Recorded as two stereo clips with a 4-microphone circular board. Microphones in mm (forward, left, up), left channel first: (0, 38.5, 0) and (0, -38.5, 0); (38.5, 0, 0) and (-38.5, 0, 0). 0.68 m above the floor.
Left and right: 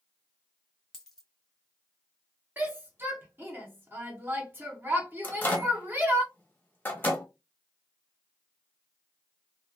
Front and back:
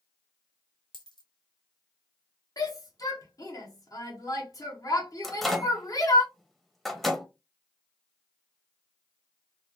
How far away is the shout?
About 1.2 m.